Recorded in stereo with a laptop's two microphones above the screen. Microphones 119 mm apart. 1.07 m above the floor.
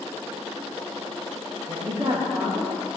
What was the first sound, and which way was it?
A woman speaking, 45° right (ahead or behind).